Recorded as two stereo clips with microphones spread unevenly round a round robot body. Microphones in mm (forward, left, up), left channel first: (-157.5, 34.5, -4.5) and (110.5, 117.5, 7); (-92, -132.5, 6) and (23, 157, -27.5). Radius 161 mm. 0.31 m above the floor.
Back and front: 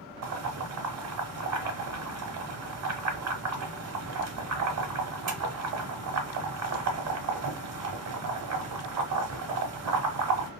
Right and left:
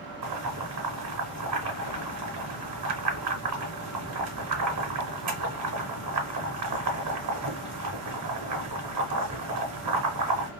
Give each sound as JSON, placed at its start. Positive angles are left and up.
{"t": 0.2, "sound": "boiling", "azimuth_deg": 40, "distance_m": 1.1}